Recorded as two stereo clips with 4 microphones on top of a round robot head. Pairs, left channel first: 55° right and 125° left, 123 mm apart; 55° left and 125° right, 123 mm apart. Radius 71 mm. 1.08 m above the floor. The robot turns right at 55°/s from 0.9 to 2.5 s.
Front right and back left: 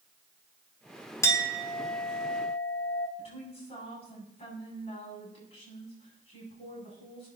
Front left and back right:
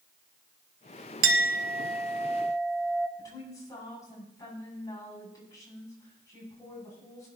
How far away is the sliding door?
I don't hear a sliding door.